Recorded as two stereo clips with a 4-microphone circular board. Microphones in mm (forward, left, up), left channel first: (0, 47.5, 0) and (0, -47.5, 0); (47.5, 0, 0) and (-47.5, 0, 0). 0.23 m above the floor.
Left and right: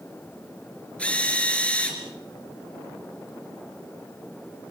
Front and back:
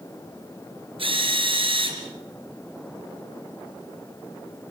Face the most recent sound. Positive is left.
turn(degrees=165)